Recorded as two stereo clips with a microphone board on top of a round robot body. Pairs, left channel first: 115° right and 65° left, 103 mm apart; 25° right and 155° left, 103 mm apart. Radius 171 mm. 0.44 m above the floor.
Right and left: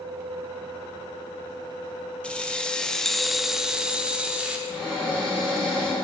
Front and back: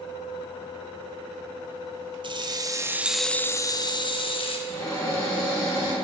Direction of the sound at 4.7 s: 75° right.